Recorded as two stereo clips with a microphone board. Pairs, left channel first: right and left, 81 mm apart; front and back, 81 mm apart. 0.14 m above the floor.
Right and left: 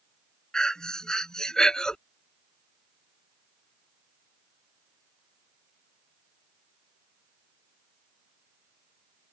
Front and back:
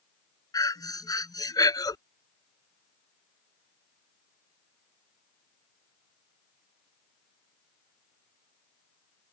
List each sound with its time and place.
0.5 s breathing: 10° right